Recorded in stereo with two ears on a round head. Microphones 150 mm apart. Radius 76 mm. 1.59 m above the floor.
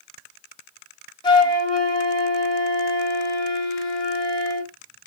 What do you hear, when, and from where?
1.2 s a flute: 25° left (ahead or behind), 1.5 m